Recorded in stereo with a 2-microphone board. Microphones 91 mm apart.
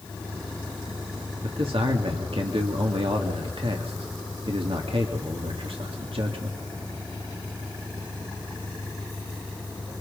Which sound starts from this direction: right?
A man speaking, at 1.4 s.